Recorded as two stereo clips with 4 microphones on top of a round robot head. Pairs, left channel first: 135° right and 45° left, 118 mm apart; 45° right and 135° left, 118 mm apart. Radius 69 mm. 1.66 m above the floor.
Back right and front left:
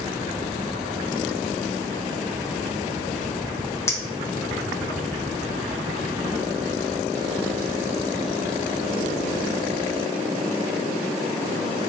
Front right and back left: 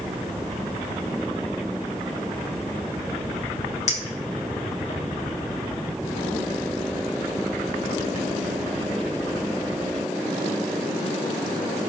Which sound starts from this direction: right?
A clink, at 3.9 s.